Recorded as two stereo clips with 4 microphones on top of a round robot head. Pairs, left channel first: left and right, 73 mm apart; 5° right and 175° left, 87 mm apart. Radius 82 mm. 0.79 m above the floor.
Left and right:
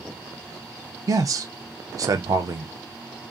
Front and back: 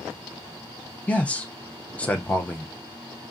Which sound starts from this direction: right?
A man speaking, at 1.1 s.